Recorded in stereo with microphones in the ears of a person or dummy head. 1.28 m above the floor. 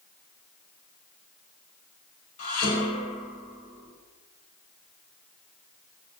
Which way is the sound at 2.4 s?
50° left (ahead or behind).